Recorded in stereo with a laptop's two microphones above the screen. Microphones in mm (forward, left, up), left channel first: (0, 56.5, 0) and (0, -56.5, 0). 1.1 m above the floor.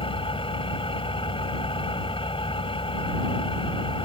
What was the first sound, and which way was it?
An engine running, 55° left (ahead or behind).